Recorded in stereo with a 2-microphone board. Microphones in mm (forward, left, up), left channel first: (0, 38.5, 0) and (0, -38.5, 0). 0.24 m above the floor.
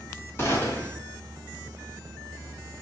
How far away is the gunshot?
About 1.4 m.